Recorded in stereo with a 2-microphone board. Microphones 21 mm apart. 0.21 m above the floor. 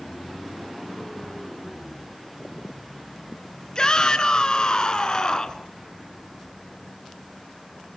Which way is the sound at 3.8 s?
35° left (ahead or behind).